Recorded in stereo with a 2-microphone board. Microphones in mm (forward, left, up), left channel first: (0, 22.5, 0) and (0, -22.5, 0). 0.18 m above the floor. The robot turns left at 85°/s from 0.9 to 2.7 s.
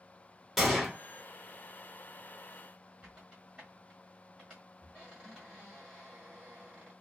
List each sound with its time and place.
0.6 s a gunshot: centre (ahead or behind), 0.9 m
3.0 s a squeak: 15° right (ahead or behind), 1.3 m